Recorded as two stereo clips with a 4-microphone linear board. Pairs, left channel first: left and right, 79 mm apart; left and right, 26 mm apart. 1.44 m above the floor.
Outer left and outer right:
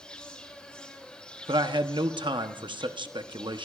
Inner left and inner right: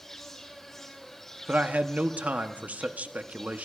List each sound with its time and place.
0.0 s an insect: 10° left (ahead or behind), 2.5 m
1.5 s a man speaking: 85° right, 0.8 m